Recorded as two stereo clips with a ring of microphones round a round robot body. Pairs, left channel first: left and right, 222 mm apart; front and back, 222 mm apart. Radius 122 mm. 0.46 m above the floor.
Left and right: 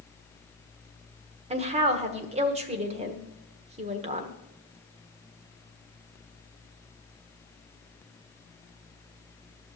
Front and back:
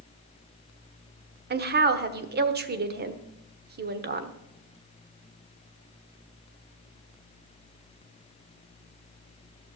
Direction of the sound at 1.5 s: 150° right.